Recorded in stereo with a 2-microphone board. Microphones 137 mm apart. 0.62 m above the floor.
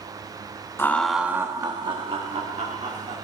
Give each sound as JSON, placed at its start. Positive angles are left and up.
{"t": 0.8, "sound": "laughter", "side_deg": 15, "distance_m": 0.5}